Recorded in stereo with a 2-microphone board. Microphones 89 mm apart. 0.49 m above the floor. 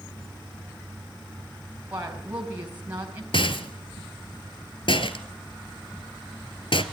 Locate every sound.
1.9 s a woman speaking: 20° right (ahead or behind), 4 m
3.3 s a rattle: 70° left (ahead or behind), 1.5 m